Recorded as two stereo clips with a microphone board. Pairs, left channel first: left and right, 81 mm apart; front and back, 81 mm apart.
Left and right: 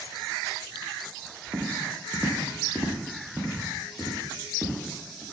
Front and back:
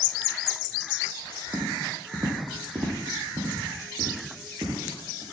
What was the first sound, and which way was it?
Footsteps, 150° right.